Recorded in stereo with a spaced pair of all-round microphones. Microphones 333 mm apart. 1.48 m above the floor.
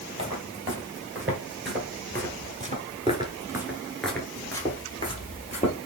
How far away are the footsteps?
About 2.5 m.